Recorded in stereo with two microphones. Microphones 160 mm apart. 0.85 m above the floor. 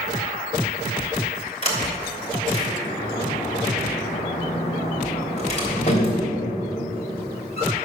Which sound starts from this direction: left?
A sliding door, at 1.6 s.